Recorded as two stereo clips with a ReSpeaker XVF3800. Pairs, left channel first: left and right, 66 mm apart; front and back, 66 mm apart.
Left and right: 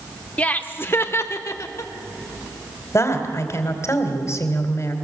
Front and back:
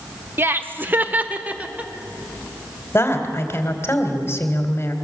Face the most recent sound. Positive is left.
turn(degrees=50)